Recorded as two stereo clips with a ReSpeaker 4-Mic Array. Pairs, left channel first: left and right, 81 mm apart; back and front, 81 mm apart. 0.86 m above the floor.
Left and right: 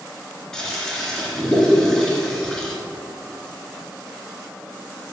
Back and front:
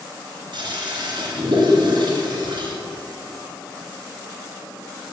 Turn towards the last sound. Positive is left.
turn(degrees=5)